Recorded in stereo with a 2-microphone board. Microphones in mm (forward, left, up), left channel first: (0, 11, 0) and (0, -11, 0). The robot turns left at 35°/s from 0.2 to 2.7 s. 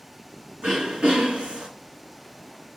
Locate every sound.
0.6 s throat clearing: 45° right, 1.3 m; by 1.7 s 80° right, 1.3 m